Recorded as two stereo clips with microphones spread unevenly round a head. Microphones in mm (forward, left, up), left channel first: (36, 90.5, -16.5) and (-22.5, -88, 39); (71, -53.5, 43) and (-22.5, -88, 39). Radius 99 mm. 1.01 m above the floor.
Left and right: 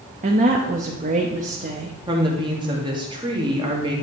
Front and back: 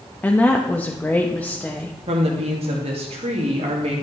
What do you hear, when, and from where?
0.2 s a woman speaking: 55° right, 0.9 m
2.1 s a woman speaking: straight behind, 1.8 m